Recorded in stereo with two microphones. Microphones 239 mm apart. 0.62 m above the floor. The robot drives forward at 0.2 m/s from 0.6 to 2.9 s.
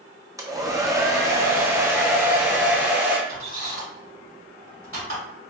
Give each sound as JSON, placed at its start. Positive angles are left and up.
{"t": 0.4, "sound": "a hair dryer", "side_deg": -15, "distance_m": 0.5}
{"t": 3.3, "sound": "a squeak", "side_deg": -65, "distance_m": 2.0}